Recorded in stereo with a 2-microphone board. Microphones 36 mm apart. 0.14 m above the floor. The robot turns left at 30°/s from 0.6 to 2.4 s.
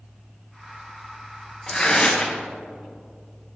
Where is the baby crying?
I don't hear a baby crying.